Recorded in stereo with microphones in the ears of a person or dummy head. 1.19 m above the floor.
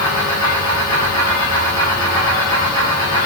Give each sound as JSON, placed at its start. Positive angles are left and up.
{"t": 0.0, "sound": "a fan", "side_deg": 20, "distance_m": 3.0}